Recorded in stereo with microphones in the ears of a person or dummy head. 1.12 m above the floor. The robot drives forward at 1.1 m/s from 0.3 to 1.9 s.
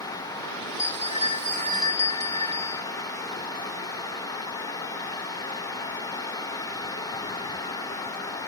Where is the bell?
30° left (ahead or behind); by 2.9 s 20° left (ahead or behind).